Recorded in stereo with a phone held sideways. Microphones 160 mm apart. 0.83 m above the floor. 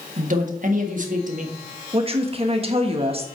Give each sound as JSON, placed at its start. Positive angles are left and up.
{"t": 0.2, "sound": "a man speaking", "side_deg": -55, "distance_m": 1.5}
{"t": 1.9, "sound": "a woman speaking", "side_deg": -35, "distance_m": 1.2}